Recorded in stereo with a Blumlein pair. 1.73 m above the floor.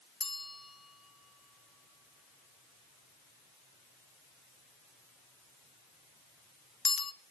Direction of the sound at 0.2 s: 15° left.